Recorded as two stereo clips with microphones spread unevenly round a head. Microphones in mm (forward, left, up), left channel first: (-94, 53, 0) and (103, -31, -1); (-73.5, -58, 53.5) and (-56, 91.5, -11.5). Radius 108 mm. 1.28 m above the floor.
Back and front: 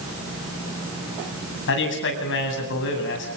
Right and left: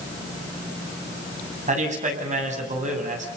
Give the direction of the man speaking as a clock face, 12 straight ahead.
8 o'clock.